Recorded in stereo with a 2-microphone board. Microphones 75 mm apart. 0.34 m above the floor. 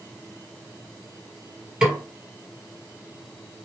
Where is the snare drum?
10° right (ahead or behind), 2.0 m.